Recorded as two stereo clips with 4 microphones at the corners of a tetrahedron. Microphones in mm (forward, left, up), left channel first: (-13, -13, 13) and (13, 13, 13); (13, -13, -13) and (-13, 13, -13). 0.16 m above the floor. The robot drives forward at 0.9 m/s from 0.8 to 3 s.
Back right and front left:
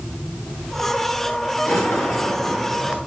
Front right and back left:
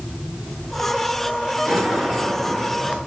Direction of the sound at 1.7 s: 145° right.